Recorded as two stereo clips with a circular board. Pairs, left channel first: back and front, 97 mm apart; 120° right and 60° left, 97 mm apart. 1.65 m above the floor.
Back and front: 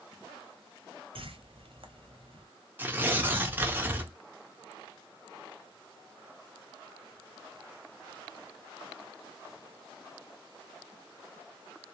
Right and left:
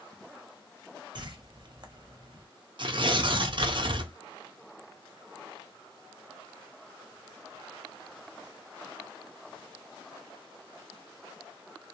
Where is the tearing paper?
65° left, 0.6 m.